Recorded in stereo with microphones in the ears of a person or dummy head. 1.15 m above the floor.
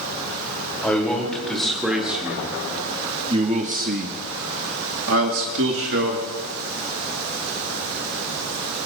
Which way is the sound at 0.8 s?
5° left (ahead or behind).